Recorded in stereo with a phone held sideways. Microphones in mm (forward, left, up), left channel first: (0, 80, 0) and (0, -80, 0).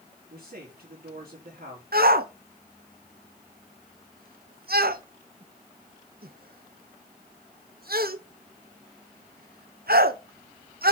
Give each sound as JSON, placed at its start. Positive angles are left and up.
{"t": 0.3, "sound": "a man speaking", "side_deg": -75, "distance_m": 3.5}
{"t": 1.9, "sound": "a shout", "side_deg": -70, "distance_m": 0.7}